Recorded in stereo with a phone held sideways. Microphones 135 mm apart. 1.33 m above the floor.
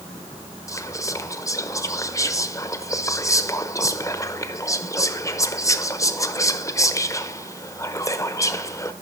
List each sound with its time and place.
0.7 s whispering: 25° left (ahead or behind), 0.9 m